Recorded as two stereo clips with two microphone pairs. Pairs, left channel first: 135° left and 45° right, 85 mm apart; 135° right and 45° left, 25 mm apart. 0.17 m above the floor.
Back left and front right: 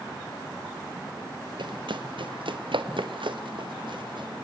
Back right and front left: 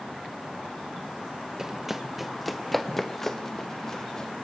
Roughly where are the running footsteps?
Ahead right.